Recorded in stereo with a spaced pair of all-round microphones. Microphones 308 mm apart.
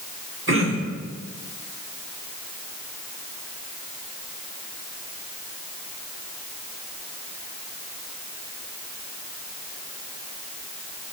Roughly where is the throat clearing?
Right.